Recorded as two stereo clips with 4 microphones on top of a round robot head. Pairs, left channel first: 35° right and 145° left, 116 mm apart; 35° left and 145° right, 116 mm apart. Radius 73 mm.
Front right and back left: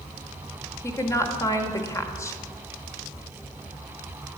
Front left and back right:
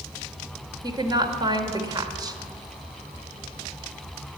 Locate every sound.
0.8 s a woman speaking: 95° right, 1.5 m